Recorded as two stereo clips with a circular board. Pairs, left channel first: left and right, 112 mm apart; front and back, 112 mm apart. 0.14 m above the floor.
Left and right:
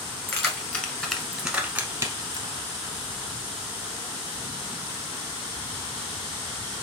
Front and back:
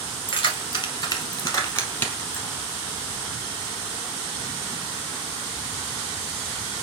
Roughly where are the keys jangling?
Ahead left.